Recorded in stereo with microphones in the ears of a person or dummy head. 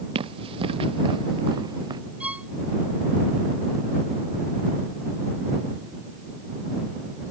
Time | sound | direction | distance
0.1 | running footsteps | 35° right (ahead or behind) | ?
2.2 | a violin | 5° right (ahead or behind) | ?